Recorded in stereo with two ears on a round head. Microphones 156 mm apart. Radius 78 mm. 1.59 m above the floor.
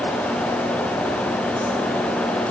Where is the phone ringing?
No phone ringing in this recording.